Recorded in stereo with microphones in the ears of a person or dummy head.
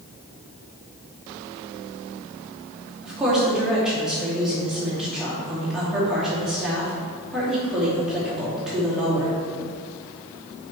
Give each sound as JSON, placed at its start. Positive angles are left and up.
{"t": 3.0, "sound": "a woman speaking", "side_deg": -5, "distance_m": 2.5}